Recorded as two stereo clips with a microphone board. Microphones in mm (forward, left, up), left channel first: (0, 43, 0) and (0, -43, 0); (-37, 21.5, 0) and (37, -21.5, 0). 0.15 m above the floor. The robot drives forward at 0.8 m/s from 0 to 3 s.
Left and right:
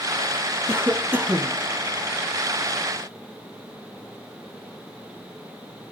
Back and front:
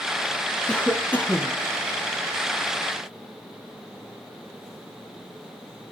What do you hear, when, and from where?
0.7 s a cough: 135° right, 1.4 m; by 1.6 s 155° right, 1.9 m